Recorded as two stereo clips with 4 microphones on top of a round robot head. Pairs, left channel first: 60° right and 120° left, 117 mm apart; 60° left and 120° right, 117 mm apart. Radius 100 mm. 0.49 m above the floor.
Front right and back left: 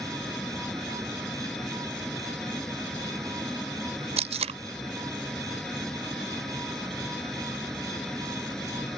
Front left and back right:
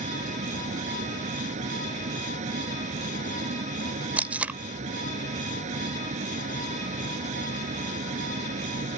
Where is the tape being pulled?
160° left.